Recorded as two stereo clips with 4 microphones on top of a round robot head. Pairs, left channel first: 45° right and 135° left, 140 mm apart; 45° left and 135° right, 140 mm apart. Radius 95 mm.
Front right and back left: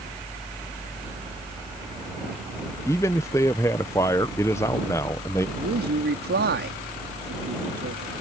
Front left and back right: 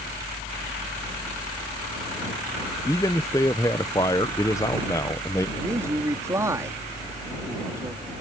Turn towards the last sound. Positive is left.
turn(degrees=150)